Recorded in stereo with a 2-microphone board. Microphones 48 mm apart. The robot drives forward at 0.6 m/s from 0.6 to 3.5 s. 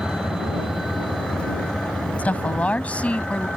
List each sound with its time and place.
0.0 s a vehicle: 15° right (ahead or behind); by 3.6 s centre (ahead or behind)
2.2 s a woman speaking: 30° left (ahead or behind); by 3.5 s 25° left (ahead or behind)